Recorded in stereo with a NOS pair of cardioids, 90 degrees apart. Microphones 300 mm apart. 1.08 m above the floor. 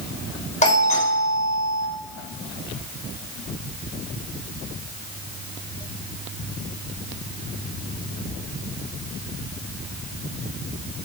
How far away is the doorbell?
About 7 m.